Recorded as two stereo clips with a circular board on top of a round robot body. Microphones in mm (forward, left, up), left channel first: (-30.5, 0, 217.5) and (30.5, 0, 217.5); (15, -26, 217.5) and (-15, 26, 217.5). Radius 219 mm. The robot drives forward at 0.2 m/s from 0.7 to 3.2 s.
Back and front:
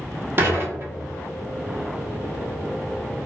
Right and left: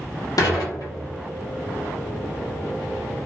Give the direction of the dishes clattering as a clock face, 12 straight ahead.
2 o'clock.